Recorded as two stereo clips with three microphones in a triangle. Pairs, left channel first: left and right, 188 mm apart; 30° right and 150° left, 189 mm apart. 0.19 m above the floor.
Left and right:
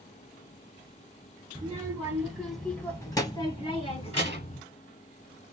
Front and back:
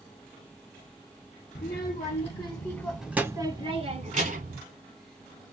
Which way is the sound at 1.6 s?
20° right.